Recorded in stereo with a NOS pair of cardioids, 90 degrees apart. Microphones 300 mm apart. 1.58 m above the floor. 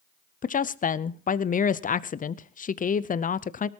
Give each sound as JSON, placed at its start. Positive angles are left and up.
{"t": 0.4, "sound": "a woman speaking", "azimuth_deg": 30, "distance_m": 0.6}